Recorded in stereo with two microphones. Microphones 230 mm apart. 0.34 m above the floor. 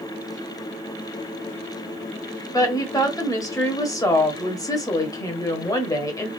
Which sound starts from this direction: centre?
A woman speaking, at 2.5 s.